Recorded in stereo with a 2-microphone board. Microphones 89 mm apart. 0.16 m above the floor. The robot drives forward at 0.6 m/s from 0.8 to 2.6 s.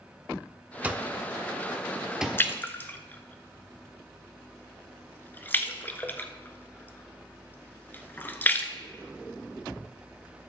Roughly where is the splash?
Left.